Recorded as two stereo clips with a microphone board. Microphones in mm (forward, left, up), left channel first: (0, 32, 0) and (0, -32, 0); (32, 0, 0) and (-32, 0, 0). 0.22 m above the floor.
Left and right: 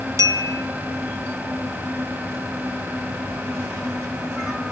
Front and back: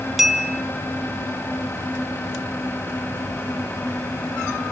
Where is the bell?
95° right, 1.6 m.